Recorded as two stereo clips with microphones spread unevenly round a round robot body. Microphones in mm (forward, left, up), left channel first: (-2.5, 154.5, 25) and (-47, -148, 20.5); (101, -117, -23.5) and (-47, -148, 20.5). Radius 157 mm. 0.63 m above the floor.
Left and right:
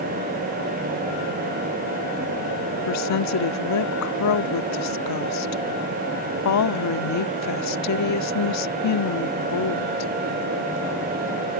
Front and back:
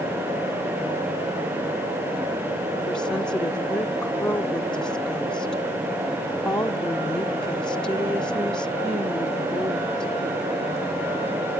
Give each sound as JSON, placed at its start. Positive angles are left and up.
{"t": 2.9, "sound": "a woman speaking", "azimuth_deg": 85}